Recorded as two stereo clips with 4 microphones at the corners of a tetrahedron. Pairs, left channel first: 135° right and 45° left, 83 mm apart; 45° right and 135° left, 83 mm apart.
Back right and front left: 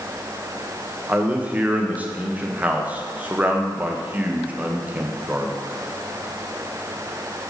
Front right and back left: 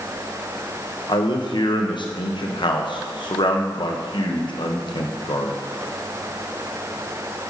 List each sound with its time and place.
1.1 s a man speaking: 25° right, 0.9 m